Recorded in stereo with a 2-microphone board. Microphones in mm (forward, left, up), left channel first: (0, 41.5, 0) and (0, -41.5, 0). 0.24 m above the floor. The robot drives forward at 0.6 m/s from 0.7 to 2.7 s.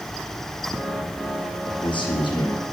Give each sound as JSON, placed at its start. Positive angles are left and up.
{"t": 1.6, "sound": "a man speaking", "side_deg": 70, "distance_m": 5.0}